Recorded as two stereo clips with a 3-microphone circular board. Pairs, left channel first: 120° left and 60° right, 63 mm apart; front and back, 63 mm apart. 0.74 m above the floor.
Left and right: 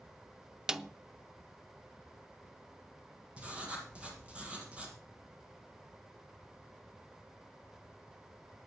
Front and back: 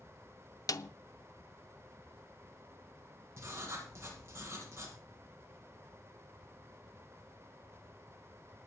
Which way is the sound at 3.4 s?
130° right.